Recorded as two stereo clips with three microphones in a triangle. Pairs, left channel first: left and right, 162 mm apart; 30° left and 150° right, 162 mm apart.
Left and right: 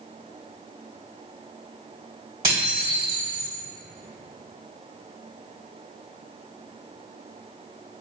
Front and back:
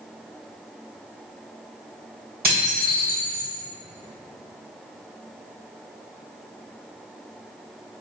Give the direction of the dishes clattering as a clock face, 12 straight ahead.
5 o'clock.